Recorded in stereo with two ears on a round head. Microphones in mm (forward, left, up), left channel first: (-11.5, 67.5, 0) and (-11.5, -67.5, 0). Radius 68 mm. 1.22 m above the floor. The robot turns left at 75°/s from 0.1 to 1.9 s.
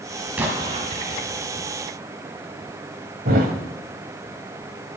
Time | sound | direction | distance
0.4 | an explosion | 10° right | 2 m
3.2 | a thud | 65° right (ahead or behind) | 2.0 m